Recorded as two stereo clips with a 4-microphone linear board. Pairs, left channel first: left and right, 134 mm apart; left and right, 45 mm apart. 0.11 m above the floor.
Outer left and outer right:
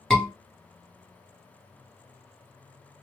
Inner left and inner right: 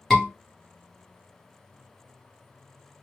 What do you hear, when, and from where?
0.1 s a scream: 5° left (ahead or behind), 1.6 m